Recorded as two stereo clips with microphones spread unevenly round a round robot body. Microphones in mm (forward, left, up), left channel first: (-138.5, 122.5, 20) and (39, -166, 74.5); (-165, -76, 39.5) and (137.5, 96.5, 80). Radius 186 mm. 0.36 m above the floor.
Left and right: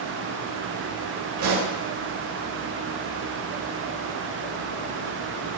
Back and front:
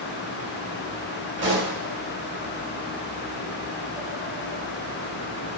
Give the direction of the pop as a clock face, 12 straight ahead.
1 o'clock.